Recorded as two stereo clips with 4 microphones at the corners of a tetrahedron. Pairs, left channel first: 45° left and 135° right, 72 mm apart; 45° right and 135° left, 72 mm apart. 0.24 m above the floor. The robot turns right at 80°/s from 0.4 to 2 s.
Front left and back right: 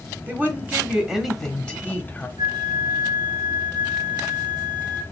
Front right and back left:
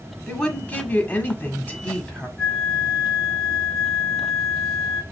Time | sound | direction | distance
0.3 | a woman speaking | 115° right | 1.1 m
2.4 | a flute | 130° right | 1.8 m